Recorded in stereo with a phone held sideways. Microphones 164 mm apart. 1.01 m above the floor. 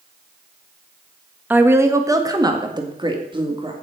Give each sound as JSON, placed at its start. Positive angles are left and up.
{"t": 1.5, "sound": "a woman speaking", "side_deg": -10, "distance_m": 1.3}